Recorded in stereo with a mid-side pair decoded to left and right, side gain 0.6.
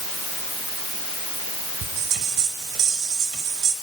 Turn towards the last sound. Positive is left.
turn(degrees=-60)